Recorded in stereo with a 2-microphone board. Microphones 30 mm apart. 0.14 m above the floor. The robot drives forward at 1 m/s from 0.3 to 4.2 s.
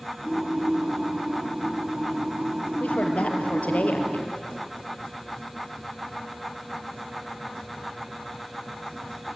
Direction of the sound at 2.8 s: 45° left (ahead or behind).